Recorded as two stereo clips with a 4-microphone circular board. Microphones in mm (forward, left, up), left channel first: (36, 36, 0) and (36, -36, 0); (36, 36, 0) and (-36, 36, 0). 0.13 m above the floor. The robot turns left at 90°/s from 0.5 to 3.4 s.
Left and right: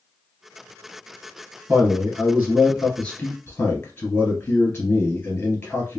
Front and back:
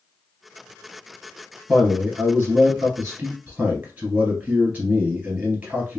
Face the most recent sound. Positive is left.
turn(degrees=125)